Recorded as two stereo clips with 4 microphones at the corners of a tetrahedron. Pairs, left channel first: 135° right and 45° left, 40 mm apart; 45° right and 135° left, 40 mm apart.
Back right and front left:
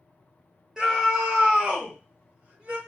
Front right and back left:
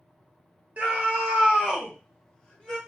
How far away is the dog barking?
No dog barking in this recording.